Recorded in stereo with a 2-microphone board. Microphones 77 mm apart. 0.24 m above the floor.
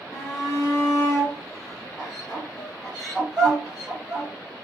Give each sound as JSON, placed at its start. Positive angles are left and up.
{"t": 0.1, "sound": "a shout", "side_deg": 5, "distance_m": 2.0}